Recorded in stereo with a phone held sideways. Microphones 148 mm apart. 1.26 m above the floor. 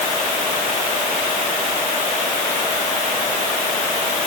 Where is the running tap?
I don't hear a running tap.